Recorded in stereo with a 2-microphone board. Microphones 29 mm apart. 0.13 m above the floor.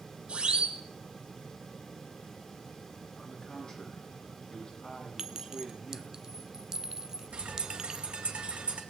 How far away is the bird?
About 2 m.